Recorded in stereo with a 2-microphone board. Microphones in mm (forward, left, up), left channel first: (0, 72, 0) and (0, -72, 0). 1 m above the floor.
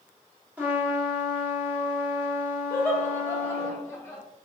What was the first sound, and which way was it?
A trumpet, 10° right (ahead or behind).